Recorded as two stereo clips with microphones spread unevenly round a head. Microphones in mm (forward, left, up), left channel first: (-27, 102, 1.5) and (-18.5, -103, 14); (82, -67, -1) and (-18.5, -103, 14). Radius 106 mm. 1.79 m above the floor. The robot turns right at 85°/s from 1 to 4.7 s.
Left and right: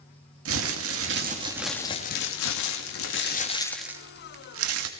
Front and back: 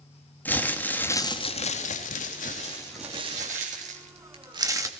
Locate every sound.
0.5 s crumpling: 55° right, 3 m; by 4.9 s 100° right, 3 m